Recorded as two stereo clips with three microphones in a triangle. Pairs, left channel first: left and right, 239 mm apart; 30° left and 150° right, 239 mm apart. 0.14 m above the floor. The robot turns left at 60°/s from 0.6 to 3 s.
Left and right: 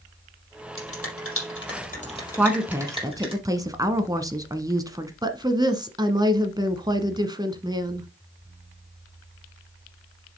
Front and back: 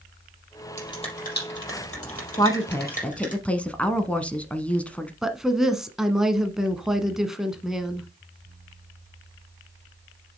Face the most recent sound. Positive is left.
turn(degrees=-65)